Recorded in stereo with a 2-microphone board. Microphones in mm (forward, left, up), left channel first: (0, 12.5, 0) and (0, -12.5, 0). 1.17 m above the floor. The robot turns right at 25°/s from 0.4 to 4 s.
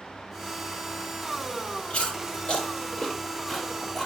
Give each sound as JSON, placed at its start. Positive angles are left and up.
{"t": 1.9, "sound": "chewing", "side_deg": 60, "distance_m": 3.5}